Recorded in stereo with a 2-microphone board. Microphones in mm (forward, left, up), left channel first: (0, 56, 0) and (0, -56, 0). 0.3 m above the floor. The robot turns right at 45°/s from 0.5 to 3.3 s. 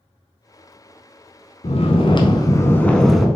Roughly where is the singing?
No singing in this recording.